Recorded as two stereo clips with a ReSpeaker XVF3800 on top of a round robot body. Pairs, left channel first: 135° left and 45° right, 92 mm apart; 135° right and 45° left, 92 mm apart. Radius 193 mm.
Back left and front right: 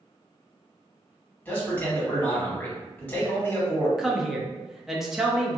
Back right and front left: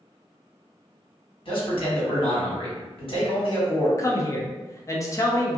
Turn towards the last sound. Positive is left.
turn(degrees=-125)